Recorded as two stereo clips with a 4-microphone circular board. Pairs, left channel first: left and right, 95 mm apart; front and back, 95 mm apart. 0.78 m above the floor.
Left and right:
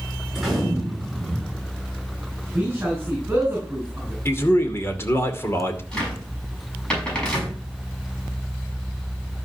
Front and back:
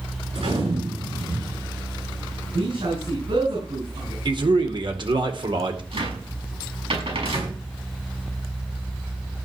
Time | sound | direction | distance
0.3 | a gunshot | straight behind | 6.5 m
2.5 | a man speaking | 160° right | 5 m
4.2 | a man speaking | 155° left | 2 m
5.9 | a cupboard door | 170° left | 5.5 m